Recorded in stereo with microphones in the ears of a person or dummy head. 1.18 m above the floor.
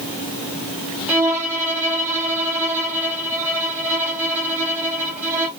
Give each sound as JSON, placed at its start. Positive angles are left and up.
{"t": 1.1, "sound": "a violin", "side_deg": -5, "distance_m": 1.1}